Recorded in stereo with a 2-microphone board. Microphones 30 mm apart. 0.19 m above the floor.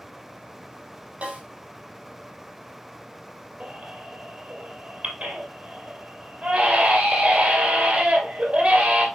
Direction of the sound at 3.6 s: 50° right (ahead or behind).